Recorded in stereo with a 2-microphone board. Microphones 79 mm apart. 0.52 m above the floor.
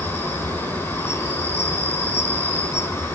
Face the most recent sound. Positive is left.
turn(degrees=35)  # may be behind; listen again after turning